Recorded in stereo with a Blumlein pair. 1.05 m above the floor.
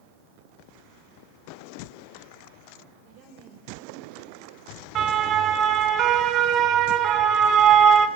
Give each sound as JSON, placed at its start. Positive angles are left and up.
{"t": 2.9, "sound": "a woman speaking", "azimuth_deg": -40, "distance_m": 4.5}
{"t": 5.0, "sound": "a siren", "azimuth_deg": -30, "distance_m": 3.5}